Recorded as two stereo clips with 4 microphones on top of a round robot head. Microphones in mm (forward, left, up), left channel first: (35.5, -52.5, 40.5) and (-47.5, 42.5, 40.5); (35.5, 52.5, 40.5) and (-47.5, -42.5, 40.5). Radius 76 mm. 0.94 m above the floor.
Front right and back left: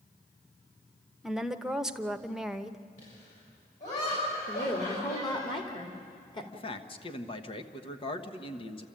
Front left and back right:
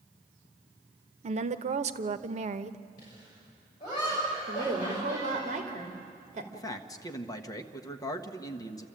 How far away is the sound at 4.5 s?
About 2.5 m.